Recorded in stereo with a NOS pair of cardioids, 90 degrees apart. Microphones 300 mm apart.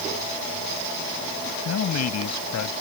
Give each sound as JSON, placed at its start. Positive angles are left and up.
{"t": 1.6, "sound": "a man speaking", "azimuth_deg": 60}